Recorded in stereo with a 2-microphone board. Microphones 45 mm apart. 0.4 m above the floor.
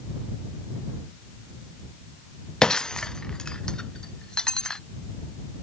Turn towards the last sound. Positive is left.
turn(degrees=15)  # may be behind; listen again after turning